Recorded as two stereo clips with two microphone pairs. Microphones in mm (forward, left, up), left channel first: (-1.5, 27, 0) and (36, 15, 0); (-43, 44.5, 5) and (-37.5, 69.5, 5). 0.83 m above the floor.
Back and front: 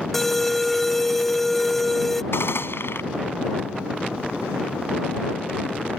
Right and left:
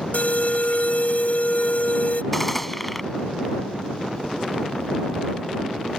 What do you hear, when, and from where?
0.1 s an alarm: 115° right
2.3 s a gunshot: 175° left